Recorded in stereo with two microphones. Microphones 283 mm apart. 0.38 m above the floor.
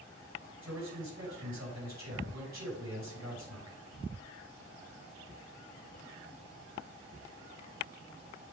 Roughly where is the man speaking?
Right.